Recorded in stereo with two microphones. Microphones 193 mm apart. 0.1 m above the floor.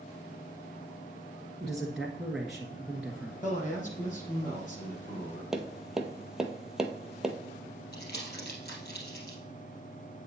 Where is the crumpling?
55° left (ahead or behind), 2.5 m.